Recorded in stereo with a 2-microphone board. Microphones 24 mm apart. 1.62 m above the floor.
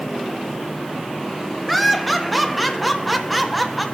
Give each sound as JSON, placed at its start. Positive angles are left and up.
{"t": 1.7, "sound": "laughter", "side_deg": 0, "distance_m": 1.2}